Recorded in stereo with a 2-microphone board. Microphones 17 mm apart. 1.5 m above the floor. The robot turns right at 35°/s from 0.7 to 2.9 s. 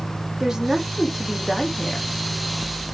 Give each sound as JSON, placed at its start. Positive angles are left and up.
{"t": 0.4, "sound": "a woman speaking", "azimuth_deg": -25, "distance_m": 3.5}